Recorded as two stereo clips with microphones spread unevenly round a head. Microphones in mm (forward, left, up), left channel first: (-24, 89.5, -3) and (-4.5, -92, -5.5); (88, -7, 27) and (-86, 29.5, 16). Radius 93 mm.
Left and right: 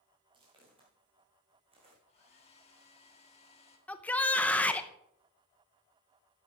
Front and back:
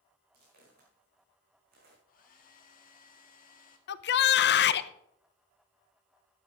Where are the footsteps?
150° right, 5.5 m; by 2.0 s 145° right, 4.5 m.